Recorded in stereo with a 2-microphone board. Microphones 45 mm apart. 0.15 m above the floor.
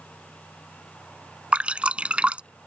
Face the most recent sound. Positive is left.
turn(degrees=-25)  # may be behind; listen again after turning